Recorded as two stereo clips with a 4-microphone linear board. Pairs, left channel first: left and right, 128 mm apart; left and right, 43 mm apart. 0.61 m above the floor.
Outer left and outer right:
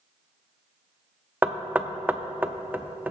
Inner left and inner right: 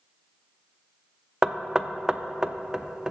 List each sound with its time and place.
1.4 s knocking: 15° right (ahead or behind), 0.5 m